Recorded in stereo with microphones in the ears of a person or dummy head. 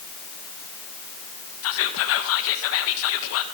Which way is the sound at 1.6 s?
70° left (ahead or behind).